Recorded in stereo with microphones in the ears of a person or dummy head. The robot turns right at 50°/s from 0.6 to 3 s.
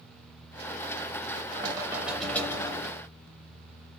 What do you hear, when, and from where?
1.5 s knocking: 30° right, 0.7 m; by 3.0 s 45° left, 0.7 m